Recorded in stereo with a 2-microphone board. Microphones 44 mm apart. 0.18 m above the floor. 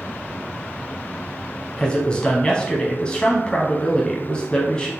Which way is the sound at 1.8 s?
20° left (ahead or behind).